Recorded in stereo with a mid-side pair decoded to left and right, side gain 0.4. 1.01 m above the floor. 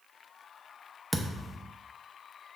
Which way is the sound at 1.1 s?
10° right.